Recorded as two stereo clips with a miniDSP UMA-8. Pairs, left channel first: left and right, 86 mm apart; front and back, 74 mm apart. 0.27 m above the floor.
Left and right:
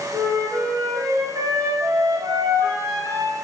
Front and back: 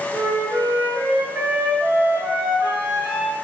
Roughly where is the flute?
Behind right.